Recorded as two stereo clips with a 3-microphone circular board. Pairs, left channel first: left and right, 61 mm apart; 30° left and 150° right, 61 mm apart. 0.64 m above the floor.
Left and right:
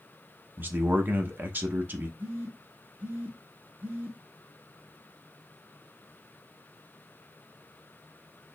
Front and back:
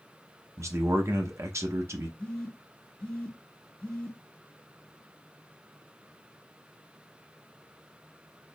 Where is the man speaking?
135° right, 0.8 m.